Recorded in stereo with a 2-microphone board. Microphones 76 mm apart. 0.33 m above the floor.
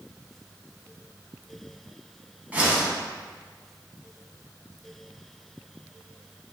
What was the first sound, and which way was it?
A whoosh, 20° right (ahead or behind).